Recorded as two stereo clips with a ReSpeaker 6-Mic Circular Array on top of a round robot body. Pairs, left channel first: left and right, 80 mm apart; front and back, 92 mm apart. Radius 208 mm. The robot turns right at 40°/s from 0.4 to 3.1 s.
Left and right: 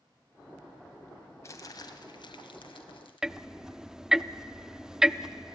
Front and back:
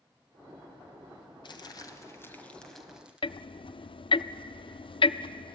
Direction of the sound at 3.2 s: 5° right.